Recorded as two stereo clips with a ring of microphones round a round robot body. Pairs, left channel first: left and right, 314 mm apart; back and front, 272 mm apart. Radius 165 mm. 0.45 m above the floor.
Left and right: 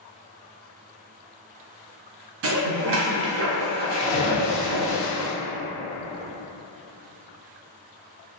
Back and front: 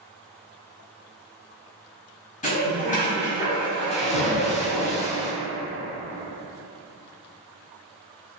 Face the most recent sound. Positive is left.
turn(degrees=120)